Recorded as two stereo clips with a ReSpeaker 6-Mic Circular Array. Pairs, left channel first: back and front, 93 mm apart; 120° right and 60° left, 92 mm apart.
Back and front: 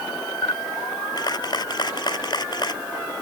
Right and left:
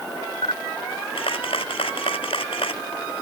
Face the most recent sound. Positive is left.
turn(degrees=-140)